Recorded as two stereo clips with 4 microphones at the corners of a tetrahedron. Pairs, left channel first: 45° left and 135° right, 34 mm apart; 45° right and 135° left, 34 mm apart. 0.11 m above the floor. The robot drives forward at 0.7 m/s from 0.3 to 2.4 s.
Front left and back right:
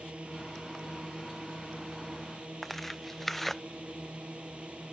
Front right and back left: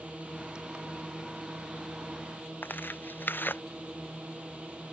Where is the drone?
175° left.